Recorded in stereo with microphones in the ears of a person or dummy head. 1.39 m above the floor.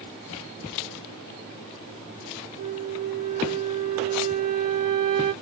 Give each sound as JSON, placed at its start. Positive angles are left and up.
{"t": 2.6, "sound": "a flute", "side_deg": -40, "distance_m": 0.5}